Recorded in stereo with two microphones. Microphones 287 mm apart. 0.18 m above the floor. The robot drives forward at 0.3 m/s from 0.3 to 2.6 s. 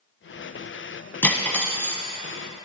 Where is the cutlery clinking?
5° left (ahead or behind), 0.6 m.